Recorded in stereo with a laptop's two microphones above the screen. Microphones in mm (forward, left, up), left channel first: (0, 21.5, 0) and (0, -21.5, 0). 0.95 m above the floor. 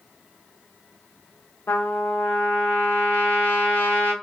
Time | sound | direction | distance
1.7 | a trumpet | 60° left (ahead or behind) | 0.7 m